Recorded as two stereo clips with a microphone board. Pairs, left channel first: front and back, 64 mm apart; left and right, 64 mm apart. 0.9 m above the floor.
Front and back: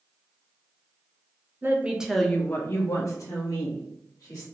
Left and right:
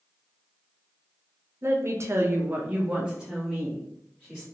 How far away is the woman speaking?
About 0.7 m.